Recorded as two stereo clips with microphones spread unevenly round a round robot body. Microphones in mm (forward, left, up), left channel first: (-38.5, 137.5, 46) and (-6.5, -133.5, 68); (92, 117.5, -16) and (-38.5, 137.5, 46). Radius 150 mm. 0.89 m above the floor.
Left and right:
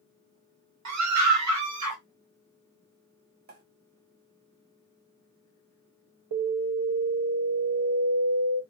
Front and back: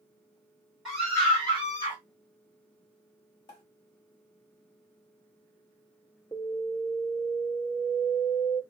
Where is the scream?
85° right, 1.5 m; by 2.0 s 55° right, 1.8 m.